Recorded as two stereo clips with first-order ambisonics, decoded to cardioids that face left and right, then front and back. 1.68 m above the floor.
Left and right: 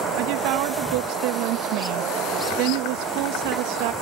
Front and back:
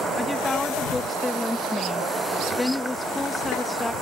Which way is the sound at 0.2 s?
80° right.